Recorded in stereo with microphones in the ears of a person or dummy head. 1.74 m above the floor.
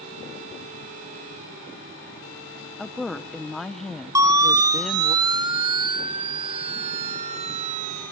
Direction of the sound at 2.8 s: Centre (ahead or behind).